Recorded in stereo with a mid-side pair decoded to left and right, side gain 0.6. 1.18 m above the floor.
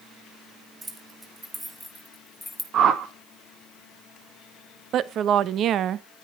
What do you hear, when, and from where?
0.8 s keys jangling: 20° right, 3 m; by 2.6 s 10° left, 2 m
2.7 s a whoosh: 50° right, 2 m
4.9 s a woman speaking: 55° right, 1.0 m